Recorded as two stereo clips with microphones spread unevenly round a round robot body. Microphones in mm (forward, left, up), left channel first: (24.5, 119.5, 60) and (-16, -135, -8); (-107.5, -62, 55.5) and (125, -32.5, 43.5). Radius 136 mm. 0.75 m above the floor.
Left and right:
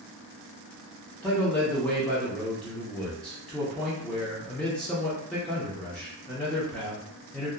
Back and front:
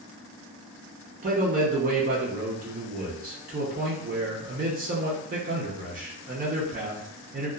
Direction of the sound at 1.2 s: 20° right.